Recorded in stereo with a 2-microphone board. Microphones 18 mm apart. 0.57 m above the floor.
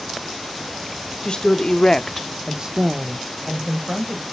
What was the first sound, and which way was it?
A woman speaking, 55° left (ahead or behind).